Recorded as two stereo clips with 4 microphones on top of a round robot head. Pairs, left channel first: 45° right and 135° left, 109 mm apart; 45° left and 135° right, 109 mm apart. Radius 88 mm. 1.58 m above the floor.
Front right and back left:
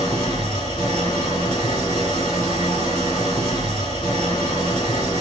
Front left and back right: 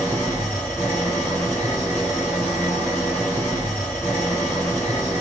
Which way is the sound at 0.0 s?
25° right.